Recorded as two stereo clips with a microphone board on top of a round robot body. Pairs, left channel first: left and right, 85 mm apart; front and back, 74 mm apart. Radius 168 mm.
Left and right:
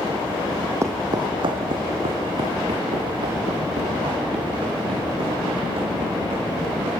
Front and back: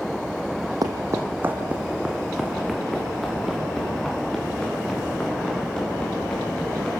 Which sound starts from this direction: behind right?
Footsteps, at 0.8 s.